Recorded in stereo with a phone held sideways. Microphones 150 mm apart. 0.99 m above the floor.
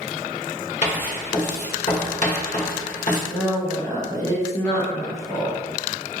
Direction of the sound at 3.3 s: 20° left (ahead or behind).